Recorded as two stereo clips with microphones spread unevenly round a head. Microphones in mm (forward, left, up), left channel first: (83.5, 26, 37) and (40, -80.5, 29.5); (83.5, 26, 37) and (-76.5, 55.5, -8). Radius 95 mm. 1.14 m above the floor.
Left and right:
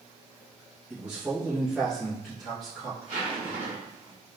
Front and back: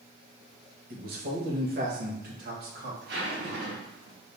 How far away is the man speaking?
About 1.3 m.